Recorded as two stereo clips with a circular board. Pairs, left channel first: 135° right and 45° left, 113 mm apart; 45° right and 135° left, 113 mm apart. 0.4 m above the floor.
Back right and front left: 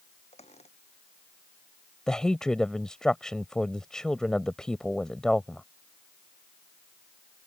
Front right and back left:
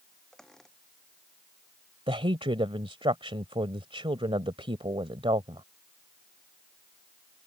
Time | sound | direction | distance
0.3 | a squeak | 130° right | ?
2.1 | a woman speaking | 140° left | ?